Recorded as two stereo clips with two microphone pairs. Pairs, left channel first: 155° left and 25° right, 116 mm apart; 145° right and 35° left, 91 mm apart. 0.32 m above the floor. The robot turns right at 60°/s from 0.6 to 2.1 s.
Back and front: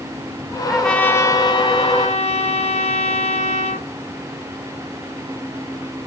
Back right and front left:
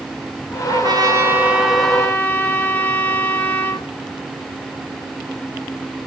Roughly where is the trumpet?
Ahead left.